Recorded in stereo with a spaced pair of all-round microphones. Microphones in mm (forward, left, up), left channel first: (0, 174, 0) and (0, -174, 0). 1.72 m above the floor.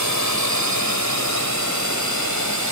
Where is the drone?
50° right (ahead or behind).